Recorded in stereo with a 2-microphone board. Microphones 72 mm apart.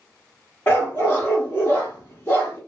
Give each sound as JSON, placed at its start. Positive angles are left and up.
{"t": 0.7, "sound": "a dog barking", "side_deg": 30, "distance_m": 1.1}